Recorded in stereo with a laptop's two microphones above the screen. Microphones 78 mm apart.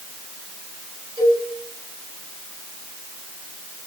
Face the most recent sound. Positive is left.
turn(degrees=-65)  # may be behind; listen again after turning